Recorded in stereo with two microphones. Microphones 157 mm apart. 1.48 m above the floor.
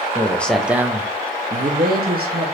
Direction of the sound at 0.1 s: 15° left (ahead or behind).